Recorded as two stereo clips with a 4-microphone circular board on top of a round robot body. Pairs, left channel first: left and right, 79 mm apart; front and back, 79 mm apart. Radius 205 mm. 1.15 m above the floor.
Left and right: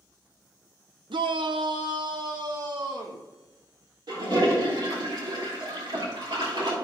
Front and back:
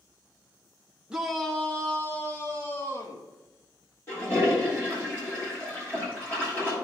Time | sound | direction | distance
1.1 | a shout | 100° right | 0.6 m
4.1 | a toilet flushing | 65° right | 3 m